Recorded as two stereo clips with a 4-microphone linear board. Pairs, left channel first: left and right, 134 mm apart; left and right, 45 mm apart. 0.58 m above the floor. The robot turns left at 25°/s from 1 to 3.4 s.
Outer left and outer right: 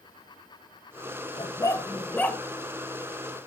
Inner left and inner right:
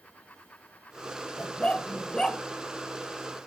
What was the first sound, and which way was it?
A dog barking, 35° left (ahead or behind).